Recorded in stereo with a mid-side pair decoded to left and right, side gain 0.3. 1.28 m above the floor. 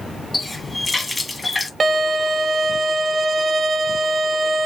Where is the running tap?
40° left, 1.4 m.